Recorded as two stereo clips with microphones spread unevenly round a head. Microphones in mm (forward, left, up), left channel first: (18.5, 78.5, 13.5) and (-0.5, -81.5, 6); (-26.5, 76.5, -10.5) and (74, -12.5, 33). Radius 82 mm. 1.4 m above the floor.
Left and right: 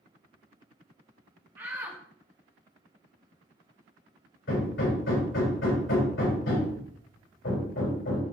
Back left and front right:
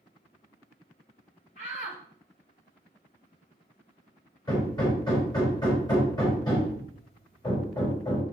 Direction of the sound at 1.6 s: 175° right.